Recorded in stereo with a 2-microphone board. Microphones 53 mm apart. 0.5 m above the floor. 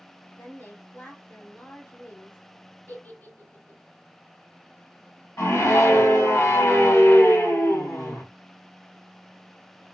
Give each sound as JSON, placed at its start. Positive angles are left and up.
{"t": 0.3, "sound": "a woman speaking", "side_deg": 40, "distance_m": 1.7}
{"t": 2.9, "sound": "a giggle", "side_deg": 45, "distance_m": 2.0}
{"t": 5.4, "sound": "a scream", "side_deg": 70, "distance_m": 2.0}